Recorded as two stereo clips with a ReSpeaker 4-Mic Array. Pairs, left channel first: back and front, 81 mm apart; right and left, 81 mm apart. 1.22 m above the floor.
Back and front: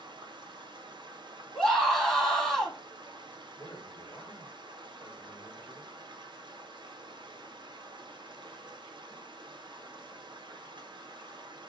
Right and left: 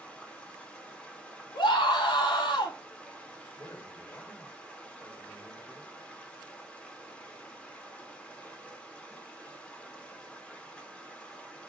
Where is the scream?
95° right, 1.8 m.